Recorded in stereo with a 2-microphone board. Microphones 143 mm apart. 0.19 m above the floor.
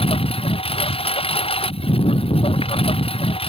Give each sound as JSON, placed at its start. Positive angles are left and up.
{"t": 0.0, "sound": "a lawn mower", "side_deg": 40}